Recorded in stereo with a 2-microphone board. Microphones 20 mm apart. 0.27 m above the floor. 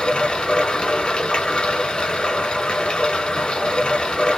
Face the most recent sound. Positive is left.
turn(degrees=55)  # may be behind; listen again after turning